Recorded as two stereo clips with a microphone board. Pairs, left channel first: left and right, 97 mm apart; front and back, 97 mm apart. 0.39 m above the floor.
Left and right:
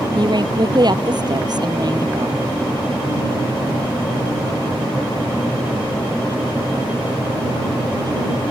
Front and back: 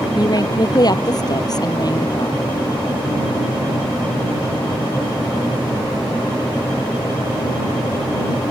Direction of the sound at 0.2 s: 50° right.